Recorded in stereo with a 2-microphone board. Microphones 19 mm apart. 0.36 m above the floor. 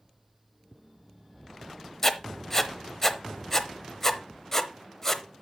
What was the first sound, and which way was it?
Writing, 20° left (ahead or behind).